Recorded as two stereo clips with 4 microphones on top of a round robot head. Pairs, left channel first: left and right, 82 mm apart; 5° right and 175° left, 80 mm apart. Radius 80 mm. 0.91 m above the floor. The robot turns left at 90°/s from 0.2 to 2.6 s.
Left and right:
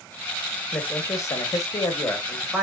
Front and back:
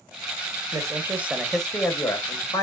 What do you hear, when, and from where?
0.7 s a man speaking: 155° left, 0.9 m; by 2.6 s 10° right, 0.9 m